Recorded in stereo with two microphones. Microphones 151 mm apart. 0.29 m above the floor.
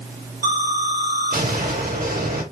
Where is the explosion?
80° right, 5.5 m.